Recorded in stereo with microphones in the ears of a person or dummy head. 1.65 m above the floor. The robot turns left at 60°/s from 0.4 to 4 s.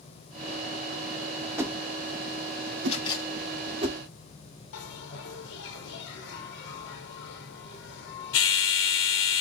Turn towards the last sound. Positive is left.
turn(degrees=70)  # may be behind; listen again after turning